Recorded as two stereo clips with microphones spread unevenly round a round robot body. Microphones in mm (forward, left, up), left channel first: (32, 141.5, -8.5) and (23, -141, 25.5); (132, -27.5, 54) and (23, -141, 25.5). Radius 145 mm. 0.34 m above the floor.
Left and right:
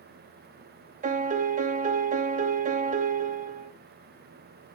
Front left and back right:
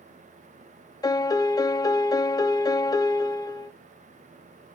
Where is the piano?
25° right, 0.7 m.